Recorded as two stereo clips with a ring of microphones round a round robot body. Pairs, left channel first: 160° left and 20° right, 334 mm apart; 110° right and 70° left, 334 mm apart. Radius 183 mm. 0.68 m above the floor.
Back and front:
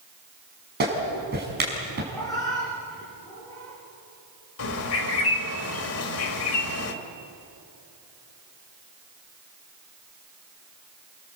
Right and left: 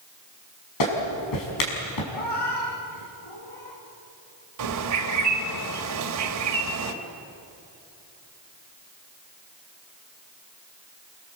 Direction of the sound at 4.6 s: 110° left.